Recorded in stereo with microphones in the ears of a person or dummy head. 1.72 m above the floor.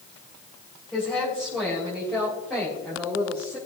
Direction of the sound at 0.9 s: Centre (ahead or behind).